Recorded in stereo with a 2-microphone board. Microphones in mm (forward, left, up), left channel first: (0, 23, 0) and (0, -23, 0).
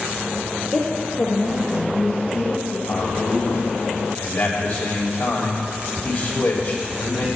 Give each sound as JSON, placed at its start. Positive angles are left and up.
{"t": 0.7, "sound": "a woman speaking", "side_deg": 30, "distance_m": 1.1}
{"t": 2.9, "sound": "a man speaking", "side_deg": 60, "distance_m": 3.0}